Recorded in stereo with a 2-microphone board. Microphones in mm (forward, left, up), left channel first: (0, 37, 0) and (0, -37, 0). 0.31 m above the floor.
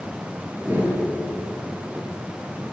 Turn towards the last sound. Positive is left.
turn(degrees=-25)  # may be behind; listen again after turning